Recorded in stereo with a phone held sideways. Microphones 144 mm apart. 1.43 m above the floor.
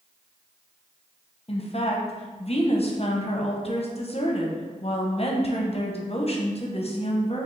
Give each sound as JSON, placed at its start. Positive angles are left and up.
{"t": 1.5, "sound": "a woman speaking", "side_deg": 50, "distance_m": 0.7}